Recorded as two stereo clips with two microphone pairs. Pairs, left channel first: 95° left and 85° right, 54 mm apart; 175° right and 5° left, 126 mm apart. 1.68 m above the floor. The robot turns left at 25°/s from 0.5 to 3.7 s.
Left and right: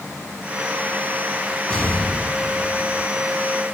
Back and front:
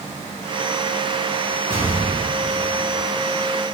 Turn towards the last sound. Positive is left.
turn(degrees=120)